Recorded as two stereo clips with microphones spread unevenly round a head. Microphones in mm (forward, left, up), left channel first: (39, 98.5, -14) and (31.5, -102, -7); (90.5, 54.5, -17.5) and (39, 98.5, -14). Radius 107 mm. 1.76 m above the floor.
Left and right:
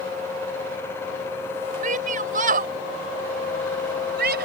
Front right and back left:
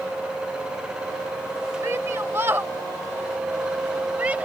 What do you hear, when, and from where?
1.8 s a shout: 150° right; by 4.5 s 140° right